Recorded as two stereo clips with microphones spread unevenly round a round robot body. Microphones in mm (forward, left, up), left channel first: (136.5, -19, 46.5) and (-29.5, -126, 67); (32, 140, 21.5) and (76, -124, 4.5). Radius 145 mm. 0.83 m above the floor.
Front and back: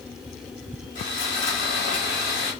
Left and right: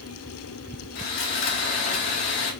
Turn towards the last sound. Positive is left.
turn(degrees=85)